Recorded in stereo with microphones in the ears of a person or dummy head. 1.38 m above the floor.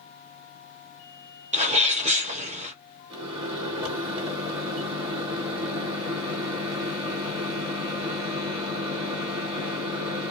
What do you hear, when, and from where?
1.5 s a sneeze: 40° right (ahead or behind), 0.9 m
3.1 s a microwave: 15° right (ahead or behind), 1.4 m